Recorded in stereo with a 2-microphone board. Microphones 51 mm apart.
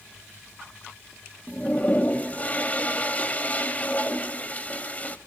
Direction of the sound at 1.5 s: 30° left (ahead or behind).